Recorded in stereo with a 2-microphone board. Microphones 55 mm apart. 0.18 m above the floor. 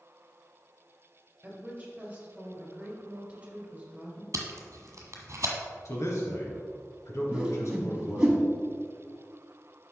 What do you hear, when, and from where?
1.4 s a woman speaking: 20° right (ahead or behind), 2.5 m
4.3 s tape being pulled: 60° right (ahead or behind), 1.4 m
5.8 s a man speaking: 65° left (ahead or behind), 2.5 m
7.3 s a whoosh: 20° right (ahead or behind), 1.4 m